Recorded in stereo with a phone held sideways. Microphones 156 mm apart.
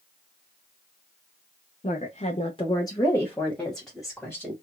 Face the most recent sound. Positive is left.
turn(degrees=-5)  # may be behind; listen again after turning